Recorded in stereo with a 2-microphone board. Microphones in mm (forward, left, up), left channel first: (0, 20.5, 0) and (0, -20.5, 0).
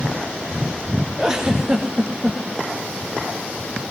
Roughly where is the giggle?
Centre.